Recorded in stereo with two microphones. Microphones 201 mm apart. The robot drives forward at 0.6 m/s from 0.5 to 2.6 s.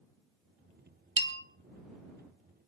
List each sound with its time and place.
1.2 s a bell: 65° right (ahead or behind), 1.1 m; by 1.4 s 60° right (ahead or behind), 1.1 m